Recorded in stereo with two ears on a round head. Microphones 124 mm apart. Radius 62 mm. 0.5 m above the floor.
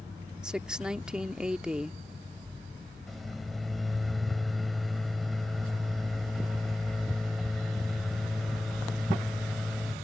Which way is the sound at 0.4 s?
5° right (ahead or behind).